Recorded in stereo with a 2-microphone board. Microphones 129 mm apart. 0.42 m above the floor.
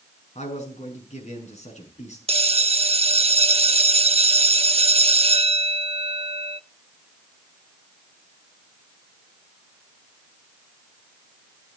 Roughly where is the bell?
Right.